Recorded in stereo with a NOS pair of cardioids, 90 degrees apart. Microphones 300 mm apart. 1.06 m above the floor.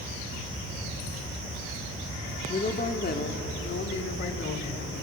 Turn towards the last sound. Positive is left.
turn(degrees=45)